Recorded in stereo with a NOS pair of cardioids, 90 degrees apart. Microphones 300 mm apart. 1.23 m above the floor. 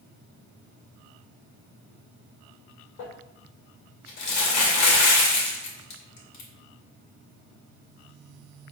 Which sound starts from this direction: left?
Crumpling, at 3.0 s.